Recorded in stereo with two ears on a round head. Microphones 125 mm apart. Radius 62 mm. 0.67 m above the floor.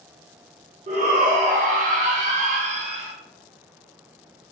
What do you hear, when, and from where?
0.9 s a shout: 50° right (ahead or behind), 1.3 m; by 3.1 s 45° right (ahead or behind), 1.0 m